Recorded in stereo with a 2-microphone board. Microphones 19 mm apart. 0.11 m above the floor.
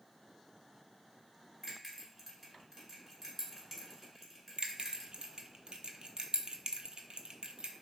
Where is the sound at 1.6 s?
20° right (ahead or behind), 1.5 m.